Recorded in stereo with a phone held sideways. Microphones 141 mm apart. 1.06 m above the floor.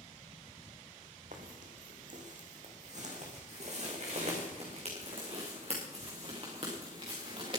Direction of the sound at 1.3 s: 65° right (ahead or behind).